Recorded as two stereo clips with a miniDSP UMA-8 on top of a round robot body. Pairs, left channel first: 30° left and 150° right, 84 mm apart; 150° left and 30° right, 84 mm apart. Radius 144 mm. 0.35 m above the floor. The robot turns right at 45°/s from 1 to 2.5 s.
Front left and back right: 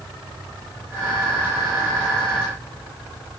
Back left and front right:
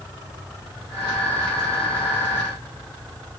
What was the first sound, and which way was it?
Only background noise.